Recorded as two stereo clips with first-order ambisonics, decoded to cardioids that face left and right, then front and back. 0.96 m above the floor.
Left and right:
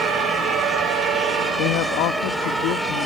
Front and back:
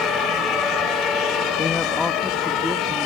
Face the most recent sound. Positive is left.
turn(degrees=95)